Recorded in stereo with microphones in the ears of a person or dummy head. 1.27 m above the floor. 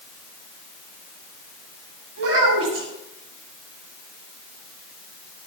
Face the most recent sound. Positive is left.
turn(degrees=-80)